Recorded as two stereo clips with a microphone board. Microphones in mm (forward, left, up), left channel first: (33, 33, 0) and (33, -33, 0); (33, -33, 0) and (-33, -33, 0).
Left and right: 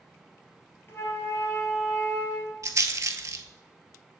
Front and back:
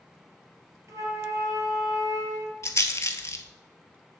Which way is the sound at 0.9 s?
145° left.